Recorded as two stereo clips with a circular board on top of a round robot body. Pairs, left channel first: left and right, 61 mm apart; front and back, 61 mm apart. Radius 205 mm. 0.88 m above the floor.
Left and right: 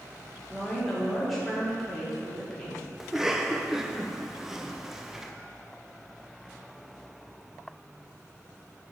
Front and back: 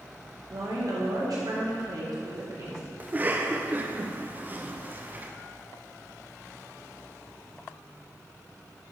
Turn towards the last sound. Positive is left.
turn(degrees=-165)